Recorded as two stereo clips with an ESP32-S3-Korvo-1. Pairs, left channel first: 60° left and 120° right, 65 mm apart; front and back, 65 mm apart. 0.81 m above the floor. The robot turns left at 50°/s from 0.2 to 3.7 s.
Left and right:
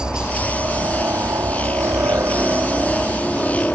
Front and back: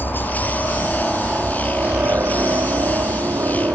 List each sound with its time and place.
0.0 s a helicopter: 45° right; by 3.8 s 140° left